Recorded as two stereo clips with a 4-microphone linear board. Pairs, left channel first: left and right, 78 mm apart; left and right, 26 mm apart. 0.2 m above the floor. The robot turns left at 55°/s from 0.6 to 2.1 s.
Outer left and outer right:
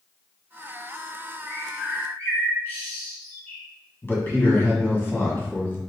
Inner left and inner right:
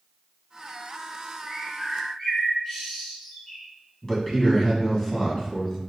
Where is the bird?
20° left (ahead or behind), 1.7 m; by 3.6 s 25° left (ahead or behind), 1.7 m.